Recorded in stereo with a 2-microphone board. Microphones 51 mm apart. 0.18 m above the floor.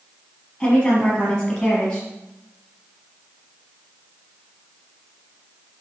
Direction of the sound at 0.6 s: 15° left (ahead or behind).